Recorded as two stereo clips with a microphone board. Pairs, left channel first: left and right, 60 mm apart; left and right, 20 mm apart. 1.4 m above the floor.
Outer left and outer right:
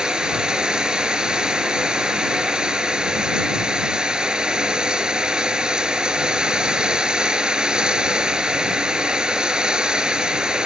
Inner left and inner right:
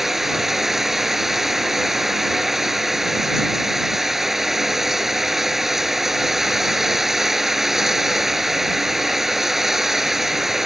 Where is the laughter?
No laughter in this recording.